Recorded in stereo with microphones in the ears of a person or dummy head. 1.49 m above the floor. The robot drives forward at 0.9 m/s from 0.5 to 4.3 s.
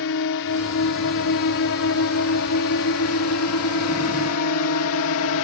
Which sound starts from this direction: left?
A drone, at 0.0 s.